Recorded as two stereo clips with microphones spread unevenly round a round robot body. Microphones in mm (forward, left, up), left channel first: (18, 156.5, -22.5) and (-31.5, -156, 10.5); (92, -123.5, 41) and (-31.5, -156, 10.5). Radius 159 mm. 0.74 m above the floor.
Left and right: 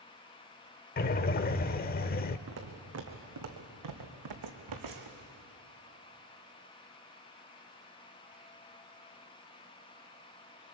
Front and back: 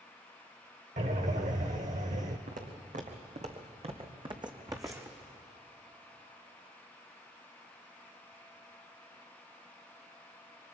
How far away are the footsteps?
About 2.5 m.